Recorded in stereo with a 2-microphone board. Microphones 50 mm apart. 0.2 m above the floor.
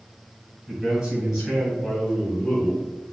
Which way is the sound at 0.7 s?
20° right (ahead or behind).